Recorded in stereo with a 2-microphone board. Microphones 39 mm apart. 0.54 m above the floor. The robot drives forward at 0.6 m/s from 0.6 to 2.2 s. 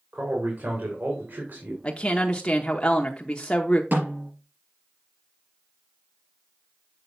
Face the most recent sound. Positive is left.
turn(degrees=-50)  # may be behind; listen again after turning